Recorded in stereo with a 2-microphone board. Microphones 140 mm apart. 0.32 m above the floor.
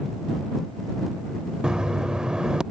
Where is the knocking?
5° right (ahead or behind).